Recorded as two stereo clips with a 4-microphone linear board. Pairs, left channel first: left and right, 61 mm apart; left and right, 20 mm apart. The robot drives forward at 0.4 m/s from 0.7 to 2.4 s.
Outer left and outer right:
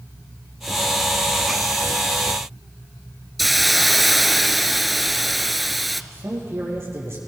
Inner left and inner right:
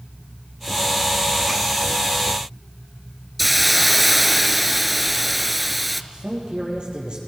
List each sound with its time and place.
3.4 s a hiss: centre (ahead or behind), 0.6 m
6.1 s a man speaking: 45° right (ahead or behind), 5.5 m